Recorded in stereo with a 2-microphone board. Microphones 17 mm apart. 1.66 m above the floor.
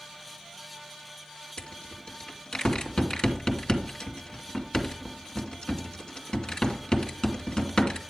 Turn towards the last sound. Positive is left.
turn(degrees=50)  # may be behind; listen again after turning